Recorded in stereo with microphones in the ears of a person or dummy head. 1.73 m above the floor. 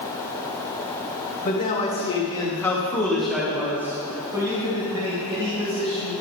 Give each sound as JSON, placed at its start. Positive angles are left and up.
{"t": 1.4, "sound": "a man speaking", "side_deg": 45, "distance_m": 1.8}